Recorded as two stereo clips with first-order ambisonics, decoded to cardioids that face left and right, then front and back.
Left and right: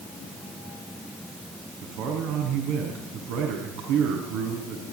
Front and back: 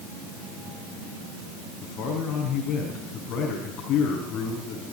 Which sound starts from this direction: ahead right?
A man speaking, at 1.8 s.